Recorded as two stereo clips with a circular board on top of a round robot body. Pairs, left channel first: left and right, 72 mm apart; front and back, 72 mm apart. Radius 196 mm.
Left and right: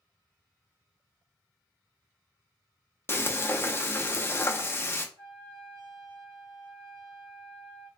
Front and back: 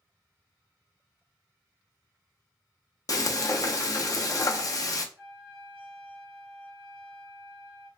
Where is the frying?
35° left, 0.7 m.